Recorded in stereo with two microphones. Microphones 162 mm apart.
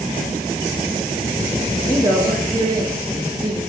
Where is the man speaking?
30° right (ahead or behind), 6.5 m.